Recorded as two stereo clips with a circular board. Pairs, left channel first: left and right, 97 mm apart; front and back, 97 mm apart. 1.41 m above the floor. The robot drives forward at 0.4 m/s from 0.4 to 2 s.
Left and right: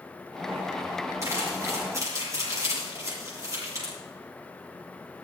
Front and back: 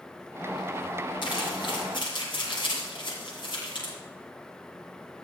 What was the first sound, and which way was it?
Crumpling, 30° right.